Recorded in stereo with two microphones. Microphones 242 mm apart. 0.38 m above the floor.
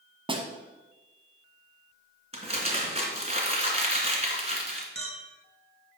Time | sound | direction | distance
0.3 | a snare drum | 20° right (ahead or behind) | 1.5 m
2.3 | crumpling | 30° right (ahead or behind) | 2.5 m
5.0 | a clink | 75° right (ahead or behind) | 2 m